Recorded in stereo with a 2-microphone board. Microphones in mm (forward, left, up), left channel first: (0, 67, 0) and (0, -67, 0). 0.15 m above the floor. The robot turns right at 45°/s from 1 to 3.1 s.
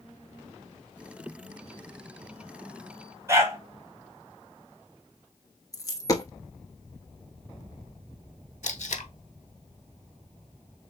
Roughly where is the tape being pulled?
Left.